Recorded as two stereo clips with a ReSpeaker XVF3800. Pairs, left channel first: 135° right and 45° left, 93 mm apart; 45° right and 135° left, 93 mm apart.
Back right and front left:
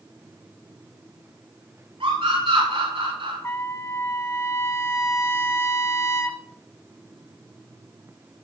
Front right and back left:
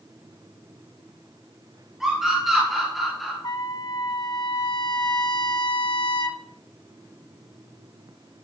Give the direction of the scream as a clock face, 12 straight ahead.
10 o'clock.